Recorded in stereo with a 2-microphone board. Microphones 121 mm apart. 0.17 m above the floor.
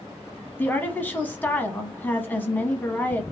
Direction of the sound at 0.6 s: 15° left (ahead or behind).